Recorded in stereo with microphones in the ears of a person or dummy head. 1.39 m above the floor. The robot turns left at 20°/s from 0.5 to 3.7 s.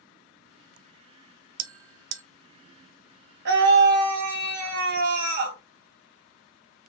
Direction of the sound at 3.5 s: 65° right (ahead or behind).